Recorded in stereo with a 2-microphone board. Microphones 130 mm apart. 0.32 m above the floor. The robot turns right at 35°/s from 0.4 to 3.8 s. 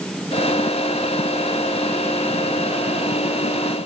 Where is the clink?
I don't hear a clink.